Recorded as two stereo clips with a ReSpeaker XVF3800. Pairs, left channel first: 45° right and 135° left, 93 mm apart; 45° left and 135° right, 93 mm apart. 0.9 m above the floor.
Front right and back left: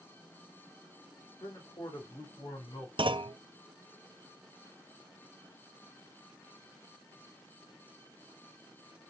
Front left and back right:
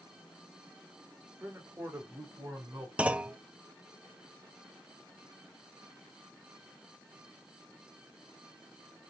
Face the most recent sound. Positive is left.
turn(degrees=150)